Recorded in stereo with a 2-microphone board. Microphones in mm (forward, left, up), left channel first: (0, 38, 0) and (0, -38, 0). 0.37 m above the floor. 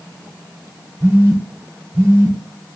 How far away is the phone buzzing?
About 1.1 m.